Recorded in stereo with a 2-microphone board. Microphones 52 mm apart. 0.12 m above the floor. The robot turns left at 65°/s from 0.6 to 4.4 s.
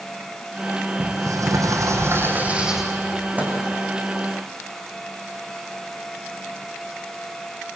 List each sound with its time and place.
1.0 s a sliding door: 55° right, 4 m; by 2.9 s 175° right, 4 m
3.4 s a microwave: 25° right (ahead or behind), 5.5 m; by 3.6 s 40° right (ahead or behind), 5.5 m